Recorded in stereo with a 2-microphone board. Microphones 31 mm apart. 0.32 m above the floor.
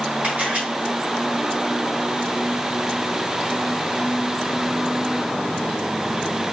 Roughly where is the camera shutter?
Right.